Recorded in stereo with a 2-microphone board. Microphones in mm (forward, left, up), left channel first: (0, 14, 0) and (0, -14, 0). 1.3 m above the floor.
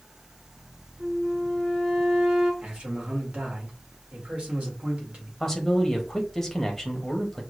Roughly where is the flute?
Right.